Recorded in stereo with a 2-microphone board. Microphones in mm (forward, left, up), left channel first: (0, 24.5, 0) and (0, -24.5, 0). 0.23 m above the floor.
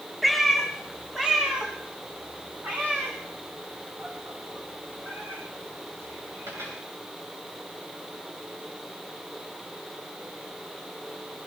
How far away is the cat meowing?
About 5 m.